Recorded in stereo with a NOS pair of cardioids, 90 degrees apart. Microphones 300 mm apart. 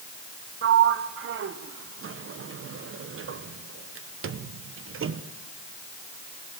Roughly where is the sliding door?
Ahead right.